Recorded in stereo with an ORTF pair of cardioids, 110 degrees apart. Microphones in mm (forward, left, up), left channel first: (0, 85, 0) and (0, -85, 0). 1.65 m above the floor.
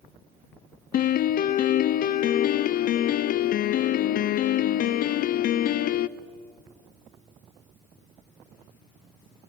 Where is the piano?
55° left, 0.6 m.